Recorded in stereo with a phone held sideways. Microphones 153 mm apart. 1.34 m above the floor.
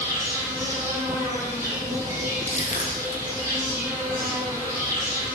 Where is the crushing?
45° left (ahead or behind), 0.6 m.